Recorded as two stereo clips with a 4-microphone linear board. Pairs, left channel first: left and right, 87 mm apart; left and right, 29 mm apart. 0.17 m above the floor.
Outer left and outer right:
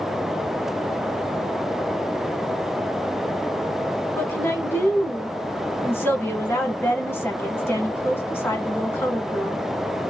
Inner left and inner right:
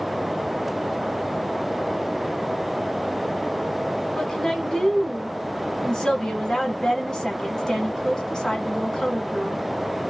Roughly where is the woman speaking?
Left.